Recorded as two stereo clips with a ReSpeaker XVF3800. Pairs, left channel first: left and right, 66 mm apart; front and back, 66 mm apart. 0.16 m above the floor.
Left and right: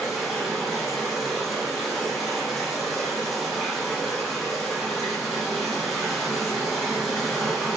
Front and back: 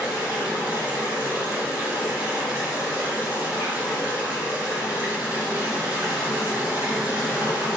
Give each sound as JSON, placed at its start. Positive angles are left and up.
{"t": 0.0, "sound": "running water", "azimuth_deg": 0, "distance_m": 1.7}